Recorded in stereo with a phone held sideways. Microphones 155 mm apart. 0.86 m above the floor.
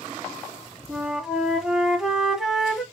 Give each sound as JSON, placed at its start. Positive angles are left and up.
{"t": 0.9, "sound": "a flute", "side_deg": -5, "distance_m": 1.1}